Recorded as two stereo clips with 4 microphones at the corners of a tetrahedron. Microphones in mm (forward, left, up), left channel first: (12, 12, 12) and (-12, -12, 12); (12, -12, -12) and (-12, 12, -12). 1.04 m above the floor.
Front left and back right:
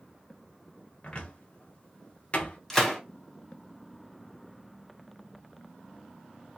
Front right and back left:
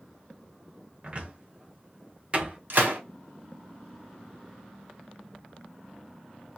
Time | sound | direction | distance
1.0 | a cupboard door | 90° left | 0.8 m
2.7 | a gunshot | 125° left | 0.9 m